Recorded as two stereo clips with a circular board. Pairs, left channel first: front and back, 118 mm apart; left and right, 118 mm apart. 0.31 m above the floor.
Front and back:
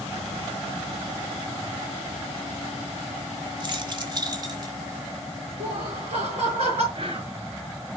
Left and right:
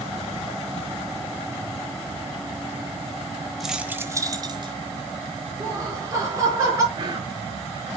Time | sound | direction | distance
3.6 | keys jangling | straight behind | 1.1 m
5.6 | laughter | 145° right | 4.5 m
6.9 | whispering | 140° right | 5 m